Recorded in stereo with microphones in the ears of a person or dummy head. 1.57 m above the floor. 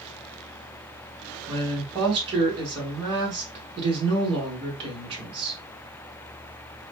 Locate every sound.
1.5 s a woman speaking: 25° right (ahead or behind), 2 m